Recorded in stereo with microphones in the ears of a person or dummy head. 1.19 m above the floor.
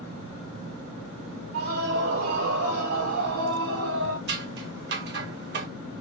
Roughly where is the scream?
Right.